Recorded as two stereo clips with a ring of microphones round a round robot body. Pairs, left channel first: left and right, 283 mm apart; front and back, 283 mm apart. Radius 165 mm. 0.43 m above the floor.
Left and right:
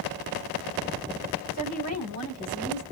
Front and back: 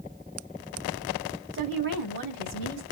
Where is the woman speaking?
125° right, 4.5 m.